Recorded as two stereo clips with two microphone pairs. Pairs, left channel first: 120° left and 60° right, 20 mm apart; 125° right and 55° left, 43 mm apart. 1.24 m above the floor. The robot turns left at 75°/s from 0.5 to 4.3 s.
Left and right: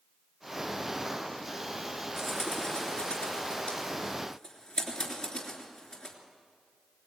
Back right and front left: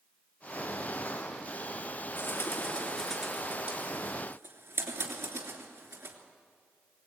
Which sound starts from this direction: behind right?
A bird, at 2.2 s.